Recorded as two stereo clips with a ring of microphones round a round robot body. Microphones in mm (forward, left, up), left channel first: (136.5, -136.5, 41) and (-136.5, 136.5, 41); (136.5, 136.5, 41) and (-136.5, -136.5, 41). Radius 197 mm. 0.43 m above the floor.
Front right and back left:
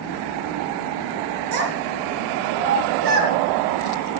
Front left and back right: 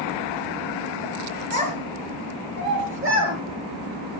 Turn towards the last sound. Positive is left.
turn(degrees=170)